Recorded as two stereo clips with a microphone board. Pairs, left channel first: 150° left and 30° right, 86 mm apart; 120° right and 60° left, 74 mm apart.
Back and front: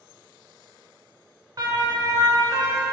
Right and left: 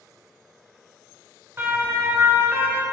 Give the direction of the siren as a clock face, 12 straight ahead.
12 o'clock.